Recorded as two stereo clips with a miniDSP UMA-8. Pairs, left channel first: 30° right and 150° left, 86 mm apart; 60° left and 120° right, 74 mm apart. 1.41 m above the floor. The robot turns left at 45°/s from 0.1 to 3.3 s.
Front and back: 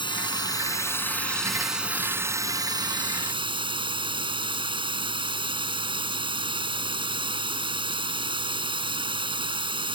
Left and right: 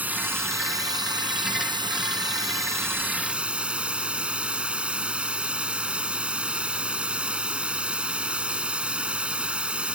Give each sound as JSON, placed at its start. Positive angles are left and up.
{"t": 0.0, "sound": "running water", "azimuth_deg": -55}